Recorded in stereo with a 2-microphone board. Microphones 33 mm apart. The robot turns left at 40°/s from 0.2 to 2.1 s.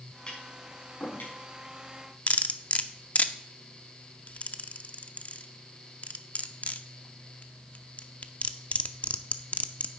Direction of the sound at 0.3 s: 30° left (ahead or behind).